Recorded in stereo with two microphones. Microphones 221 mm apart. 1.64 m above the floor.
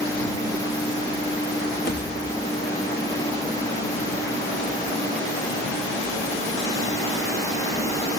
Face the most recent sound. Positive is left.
turn(degrees=50)  # may be behind; listen again after turning